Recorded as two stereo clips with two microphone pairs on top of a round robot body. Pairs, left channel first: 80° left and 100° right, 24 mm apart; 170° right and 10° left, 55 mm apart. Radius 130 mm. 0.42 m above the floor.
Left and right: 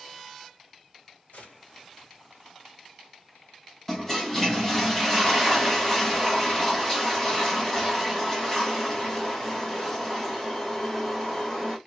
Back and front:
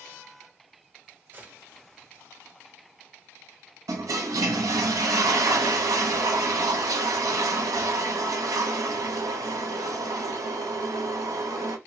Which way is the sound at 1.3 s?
60° left.